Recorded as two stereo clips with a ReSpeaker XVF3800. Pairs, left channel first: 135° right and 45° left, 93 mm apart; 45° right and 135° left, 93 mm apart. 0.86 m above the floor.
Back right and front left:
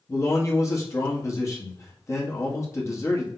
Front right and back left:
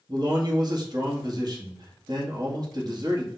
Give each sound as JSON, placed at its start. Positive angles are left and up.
{"t": 0.1, "sound": "a man speaking", "azimuth_deg": 170, "distance_m": 1.4}